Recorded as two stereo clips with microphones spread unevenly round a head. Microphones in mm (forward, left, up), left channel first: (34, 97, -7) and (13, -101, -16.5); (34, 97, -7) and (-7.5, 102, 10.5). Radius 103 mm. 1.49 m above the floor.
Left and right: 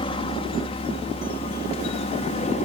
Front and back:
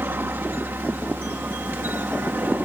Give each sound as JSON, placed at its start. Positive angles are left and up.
{"t": 0.0, "sound": "a helicopter", "azimuth_deg": 150}